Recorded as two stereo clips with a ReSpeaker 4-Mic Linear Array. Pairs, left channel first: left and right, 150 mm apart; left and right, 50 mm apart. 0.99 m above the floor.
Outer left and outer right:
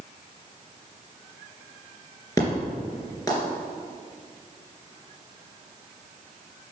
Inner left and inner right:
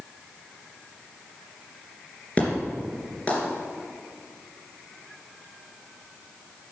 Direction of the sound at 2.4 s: 20° left (ahead or behind).